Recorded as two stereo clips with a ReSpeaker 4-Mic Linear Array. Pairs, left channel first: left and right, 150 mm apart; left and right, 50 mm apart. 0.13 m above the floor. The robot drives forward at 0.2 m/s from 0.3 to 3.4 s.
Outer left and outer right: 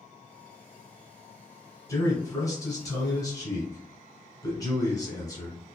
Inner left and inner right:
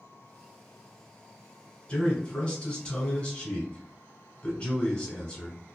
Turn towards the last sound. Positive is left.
turn(degrees=25)  # may be behind; listen again after turning